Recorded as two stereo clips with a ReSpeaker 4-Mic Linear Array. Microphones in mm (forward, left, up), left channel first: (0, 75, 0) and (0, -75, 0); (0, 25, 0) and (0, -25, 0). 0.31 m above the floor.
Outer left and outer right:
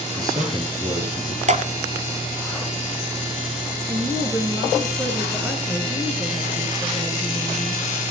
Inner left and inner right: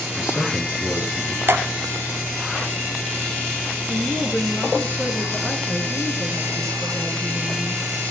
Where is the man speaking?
25° right (ahead or behind), 7.5 m; by 1.4 s 15° right (ahead or behind), 7.5 m.